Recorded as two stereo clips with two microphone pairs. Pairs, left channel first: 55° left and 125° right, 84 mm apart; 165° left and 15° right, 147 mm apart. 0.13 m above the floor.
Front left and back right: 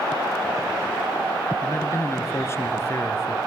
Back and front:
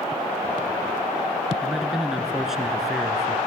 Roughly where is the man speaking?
Left.